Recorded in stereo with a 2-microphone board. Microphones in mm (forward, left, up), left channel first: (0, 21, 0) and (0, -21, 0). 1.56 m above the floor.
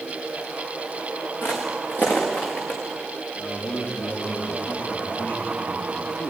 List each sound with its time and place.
1.4 s footsteps: 55° left (ahead or behind), 5.5 m; by 2.8 s 45° left (ahead or behind), 6 m
3.4 s a man speaking: 60° left (ahead or behind), 4 m